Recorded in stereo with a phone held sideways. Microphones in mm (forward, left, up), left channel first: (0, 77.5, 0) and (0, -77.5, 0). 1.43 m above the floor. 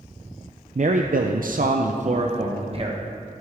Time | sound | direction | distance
0.8 | a man speaking | 50° right (ahead or behind) | 0.5 m